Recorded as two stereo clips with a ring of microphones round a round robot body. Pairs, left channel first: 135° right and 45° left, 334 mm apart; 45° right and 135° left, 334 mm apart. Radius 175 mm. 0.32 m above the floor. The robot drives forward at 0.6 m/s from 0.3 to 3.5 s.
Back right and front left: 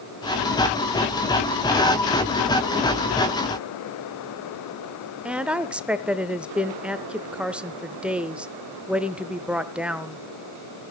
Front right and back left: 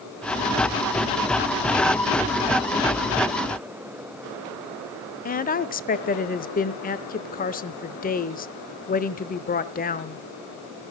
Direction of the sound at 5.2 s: 35° right.